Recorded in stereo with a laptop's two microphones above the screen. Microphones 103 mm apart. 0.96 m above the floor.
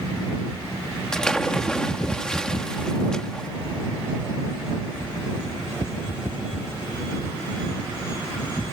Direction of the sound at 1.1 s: 5° left (ahead or behind).